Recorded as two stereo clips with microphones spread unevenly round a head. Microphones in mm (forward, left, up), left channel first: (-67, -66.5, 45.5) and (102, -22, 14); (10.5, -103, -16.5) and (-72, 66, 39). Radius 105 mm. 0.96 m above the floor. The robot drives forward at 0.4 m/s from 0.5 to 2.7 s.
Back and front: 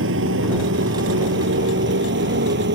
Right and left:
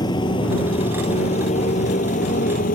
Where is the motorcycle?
10° left; by 2.8 s 10° right.